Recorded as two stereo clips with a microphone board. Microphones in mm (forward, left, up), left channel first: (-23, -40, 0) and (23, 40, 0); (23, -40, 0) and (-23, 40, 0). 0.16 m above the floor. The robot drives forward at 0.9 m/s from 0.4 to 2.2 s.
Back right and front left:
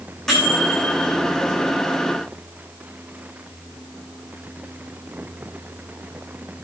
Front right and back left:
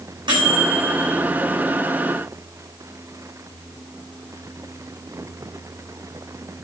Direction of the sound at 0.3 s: 155° left.